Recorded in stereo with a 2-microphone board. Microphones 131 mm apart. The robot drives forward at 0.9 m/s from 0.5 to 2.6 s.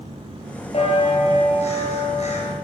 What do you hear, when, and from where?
0.7 s a bell: 50° left (ahead or behind), 7 m; by 2.5 s 60° left (ahead or behind), 6 m